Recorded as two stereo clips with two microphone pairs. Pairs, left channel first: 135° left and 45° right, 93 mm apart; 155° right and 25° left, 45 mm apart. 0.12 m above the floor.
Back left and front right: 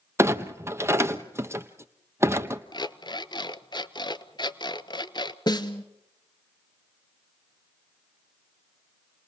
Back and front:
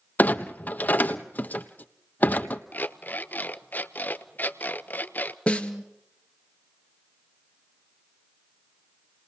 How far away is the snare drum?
About 1.6 m.